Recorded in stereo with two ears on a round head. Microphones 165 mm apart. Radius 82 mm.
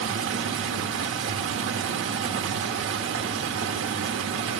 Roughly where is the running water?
Right.